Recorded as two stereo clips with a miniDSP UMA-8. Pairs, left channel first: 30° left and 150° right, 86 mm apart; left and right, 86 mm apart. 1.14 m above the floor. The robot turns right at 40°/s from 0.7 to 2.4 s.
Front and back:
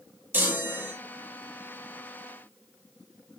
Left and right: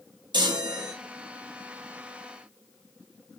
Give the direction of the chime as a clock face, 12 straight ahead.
3 o'clock.